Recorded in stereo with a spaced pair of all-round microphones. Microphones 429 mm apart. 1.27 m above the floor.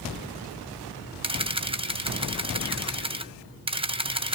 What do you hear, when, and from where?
1.2 s a camera shutter: 15° right (ahead or behind), 0.6 m